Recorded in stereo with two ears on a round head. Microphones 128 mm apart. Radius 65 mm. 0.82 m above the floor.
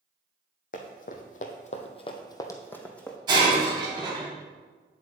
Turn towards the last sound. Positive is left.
turn(degrees=-30)  # may be behind; listen again after turning